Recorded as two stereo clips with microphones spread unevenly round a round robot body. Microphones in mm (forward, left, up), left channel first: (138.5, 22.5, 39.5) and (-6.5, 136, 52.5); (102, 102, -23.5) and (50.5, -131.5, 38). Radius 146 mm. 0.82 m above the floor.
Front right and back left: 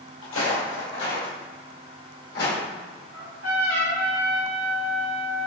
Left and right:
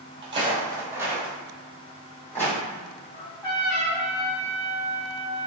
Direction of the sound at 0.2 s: 45° right.